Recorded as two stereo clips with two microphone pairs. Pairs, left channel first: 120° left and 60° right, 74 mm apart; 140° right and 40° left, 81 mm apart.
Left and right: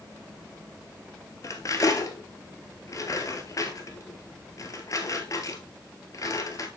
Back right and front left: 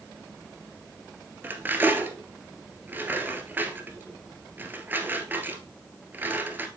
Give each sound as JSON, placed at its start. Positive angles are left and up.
{"t": 1.4, "sound": "cutlery clinking", "azimuth_deg": 100, "distance_m": 1.3}